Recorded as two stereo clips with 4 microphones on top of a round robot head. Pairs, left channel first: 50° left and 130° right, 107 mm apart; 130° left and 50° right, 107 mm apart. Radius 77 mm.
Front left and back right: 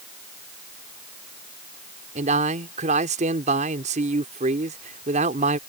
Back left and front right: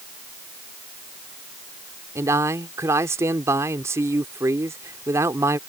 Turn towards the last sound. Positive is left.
turn(degrees=-120)